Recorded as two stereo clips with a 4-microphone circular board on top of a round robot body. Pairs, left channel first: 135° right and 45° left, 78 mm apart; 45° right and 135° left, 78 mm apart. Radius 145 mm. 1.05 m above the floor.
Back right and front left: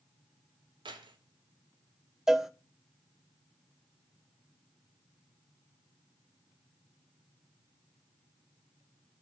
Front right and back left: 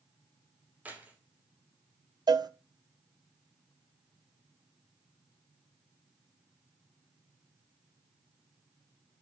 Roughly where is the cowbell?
Behind left.